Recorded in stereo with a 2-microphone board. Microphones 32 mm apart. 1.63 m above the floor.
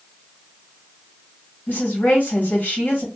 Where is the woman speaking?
70° left (ahead or behind), 2 m.